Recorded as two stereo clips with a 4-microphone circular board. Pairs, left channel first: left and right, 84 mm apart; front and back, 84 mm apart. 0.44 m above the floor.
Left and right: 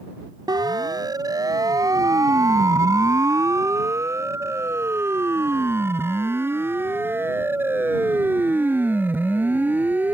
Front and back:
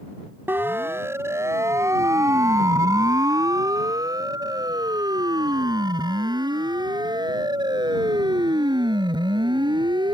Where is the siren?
115° right; by 10.1 s 160° right.